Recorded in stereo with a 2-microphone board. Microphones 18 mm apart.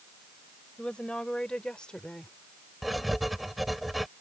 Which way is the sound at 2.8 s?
5° right (ahead or behind).